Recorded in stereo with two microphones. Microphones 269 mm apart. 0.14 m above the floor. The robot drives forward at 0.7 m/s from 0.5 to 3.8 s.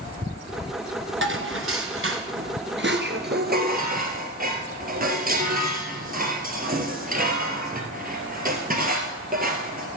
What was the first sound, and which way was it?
Dishes clattering, 50° right (ahead or behind).